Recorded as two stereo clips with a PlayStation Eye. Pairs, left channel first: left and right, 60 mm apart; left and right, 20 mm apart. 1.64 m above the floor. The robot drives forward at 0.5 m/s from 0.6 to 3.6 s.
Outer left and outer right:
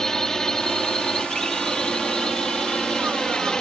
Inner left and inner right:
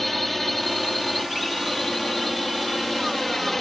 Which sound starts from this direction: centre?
A drone, at 0.0 s.